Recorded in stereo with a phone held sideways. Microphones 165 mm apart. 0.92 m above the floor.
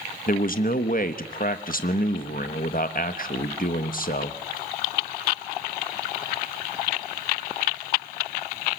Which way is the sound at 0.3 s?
55° left (ahead or behind).